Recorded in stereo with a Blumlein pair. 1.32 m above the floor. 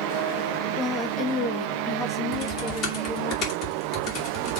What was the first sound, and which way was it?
A woman speaking, 5° left.